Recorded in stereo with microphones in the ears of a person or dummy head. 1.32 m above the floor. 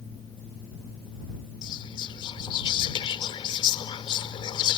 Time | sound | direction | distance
1.6 | whispering | 25° left (ahead or behind) | ?